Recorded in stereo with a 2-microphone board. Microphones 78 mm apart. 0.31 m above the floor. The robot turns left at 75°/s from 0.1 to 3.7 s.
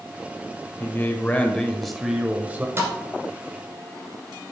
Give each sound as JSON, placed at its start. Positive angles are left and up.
{"t": 0.8, "sound": "a man speaking", "side_deg": 25, "distance_m": 0.9}
{"t": 2.8, "sound": "a thud", "side_deg": -30, "distance_m": 1.7}